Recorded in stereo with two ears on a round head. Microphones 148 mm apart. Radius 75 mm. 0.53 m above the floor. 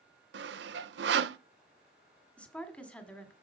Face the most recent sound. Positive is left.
turn(degrees=10)  # may be behind; listen again after turning